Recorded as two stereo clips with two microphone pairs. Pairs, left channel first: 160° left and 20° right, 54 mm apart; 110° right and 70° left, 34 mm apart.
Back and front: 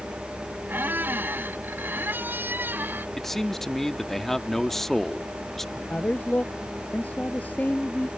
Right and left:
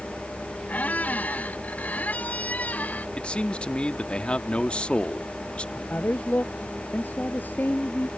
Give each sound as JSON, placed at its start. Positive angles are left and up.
{"t": 0.7, "sound": "a squeak", "azimuth_deg": -70}
{"t": 3.2, "sound": "a man speaking", "azimuth_deg": -120}
{"t": 5.8, "sound": "a man speaking", "azimuth_deg": -140}